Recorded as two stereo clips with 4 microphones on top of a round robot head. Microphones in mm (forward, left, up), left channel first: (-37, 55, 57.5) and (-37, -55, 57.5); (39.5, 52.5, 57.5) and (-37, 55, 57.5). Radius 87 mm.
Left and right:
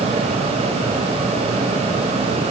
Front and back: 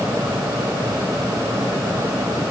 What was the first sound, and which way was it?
Only background noise.